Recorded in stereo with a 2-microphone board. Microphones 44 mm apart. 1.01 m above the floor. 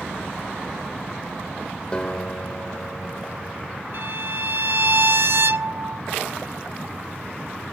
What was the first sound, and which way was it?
A guitar, 25° left (ahead or behind).